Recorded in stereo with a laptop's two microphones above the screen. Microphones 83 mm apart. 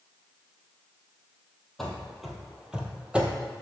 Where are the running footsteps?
5° left (ahead or behind), 1.3 m; by 3.5 s 15° right (ahead or behind), 1.4 m.